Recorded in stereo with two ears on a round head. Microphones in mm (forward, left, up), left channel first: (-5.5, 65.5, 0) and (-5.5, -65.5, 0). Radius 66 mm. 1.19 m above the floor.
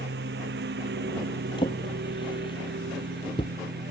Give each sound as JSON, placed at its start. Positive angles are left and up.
{"t": 0.0, "sound": "a lawn mower", "side_deg": -80}
{"t": 1.6, "sound": "a drawer", "side_deg": 35}